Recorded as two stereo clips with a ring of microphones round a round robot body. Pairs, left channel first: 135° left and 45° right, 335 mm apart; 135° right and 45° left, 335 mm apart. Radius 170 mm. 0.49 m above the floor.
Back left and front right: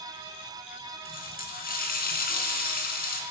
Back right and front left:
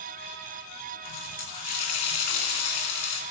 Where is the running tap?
160° right, 3.5 m.